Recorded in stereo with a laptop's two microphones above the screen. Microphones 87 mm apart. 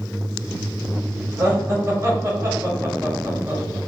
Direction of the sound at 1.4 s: 30° right (ahead or behind).